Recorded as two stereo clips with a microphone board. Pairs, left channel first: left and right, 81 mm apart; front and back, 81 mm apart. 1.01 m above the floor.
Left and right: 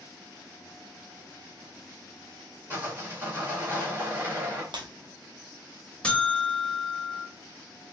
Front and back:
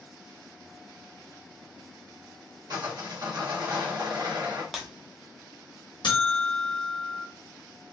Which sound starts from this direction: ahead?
A buzzer, at 6.0 s.